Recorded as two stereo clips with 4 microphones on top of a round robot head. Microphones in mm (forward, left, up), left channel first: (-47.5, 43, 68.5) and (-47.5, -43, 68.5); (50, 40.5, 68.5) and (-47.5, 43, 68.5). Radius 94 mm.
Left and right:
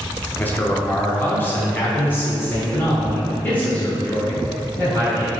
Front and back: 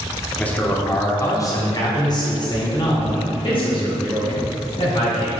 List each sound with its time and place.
0.4 s a man speaking: 60° left, 1.2 m; by 5.3 s 20° left, 3.5 m